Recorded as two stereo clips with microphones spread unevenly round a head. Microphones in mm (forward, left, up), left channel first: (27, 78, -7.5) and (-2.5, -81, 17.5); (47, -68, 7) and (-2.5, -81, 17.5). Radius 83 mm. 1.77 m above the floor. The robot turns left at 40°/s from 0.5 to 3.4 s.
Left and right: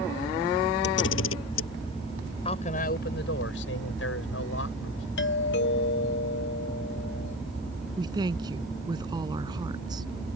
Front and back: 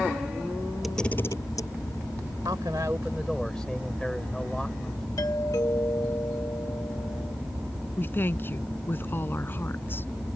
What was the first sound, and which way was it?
A camera shutter, 110° left.